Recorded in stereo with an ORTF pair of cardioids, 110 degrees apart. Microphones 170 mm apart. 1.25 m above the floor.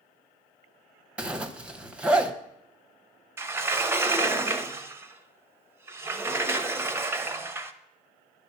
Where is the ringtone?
No ringtone in this recording.